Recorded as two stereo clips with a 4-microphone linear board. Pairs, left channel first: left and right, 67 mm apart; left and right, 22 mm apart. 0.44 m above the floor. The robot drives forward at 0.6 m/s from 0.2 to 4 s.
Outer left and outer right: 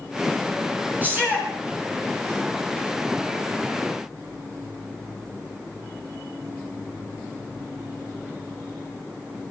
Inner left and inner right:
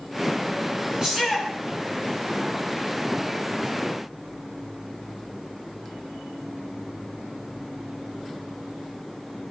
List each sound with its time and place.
1.0 s a shout: 30° right (ahead or behind), 6 m; by 1.5 s 25° right (ahead or behind), 6.5 m